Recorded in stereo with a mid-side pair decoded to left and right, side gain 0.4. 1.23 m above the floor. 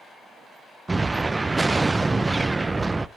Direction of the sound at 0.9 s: 20° right.